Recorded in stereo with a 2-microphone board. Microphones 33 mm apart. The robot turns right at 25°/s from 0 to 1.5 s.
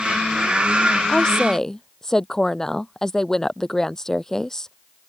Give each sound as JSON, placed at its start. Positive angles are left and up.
{"t": 1.1, "sound": "a woman speaking", "side_deg": 25}